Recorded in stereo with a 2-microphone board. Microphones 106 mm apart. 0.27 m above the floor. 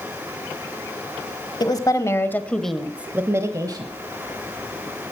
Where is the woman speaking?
40° left (ahead or behind), 1.2 m; by 3.9 s 40° right (ahead or behind), 1.2 m.